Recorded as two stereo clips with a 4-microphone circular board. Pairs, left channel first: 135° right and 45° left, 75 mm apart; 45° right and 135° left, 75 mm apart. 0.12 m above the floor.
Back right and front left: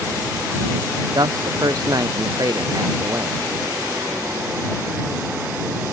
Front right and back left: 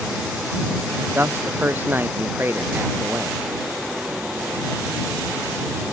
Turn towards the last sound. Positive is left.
turn(degrees=80)